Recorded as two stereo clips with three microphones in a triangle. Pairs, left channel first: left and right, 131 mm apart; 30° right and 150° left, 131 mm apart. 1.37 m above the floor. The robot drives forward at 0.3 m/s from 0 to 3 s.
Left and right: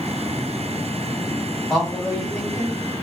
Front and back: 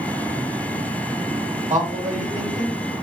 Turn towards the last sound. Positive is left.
turn(degrees=175)